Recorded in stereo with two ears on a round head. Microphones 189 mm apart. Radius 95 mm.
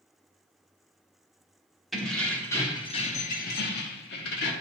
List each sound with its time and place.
1.9 s keys jangling: centre (ahead or behind), 1.2 m; by 4.5 s 55° left (ahead or behind), 1.1 m